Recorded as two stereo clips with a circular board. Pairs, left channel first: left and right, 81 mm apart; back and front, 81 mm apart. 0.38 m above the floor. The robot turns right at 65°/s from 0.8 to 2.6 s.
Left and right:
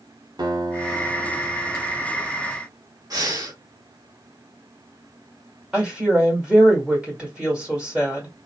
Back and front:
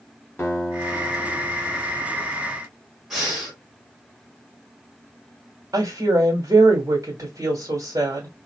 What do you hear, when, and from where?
0.4 s a guitar: 120° right, 1.1 m; by 2.0 s 40° right, 1.1 m
3.1 s breathing: 85° right, 1.2 m
5.7 s a woman speaking: 15° right, 1.4 m